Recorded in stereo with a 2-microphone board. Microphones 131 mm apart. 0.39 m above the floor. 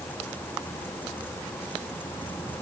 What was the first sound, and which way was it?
Only background noise.